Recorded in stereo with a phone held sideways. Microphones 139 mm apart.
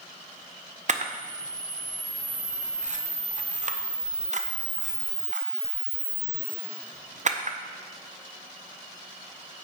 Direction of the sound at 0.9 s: 55° right (ahead or behind).